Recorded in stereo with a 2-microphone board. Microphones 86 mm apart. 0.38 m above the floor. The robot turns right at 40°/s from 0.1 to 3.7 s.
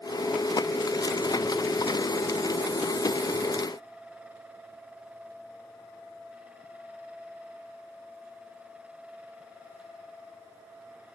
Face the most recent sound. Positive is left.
No sound to turn to.